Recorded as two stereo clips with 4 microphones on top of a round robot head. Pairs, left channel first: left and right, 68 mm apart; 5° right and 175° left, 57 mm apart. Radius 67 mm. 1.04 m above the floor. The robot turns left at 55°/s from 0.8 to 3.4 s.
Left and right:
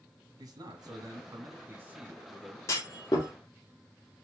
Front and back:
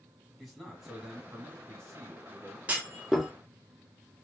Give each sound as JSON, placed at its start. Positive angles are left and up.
{"t": 0.4, "sound": "a man speaking", "azimuth_deg": -95, "distance_m": 1.6}
{"t": 2.7, "sound": "a clunk", "azimuth_deg": 120, "distance_m": 0.7}